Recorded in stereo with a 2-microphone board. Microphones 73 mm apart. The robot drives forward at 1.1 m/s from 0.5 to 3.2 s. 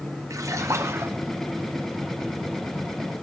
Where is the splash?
45° right (ahead or behind), 1.8 m; by 1.2 s 35° right (ahead or behind), 2.5 m.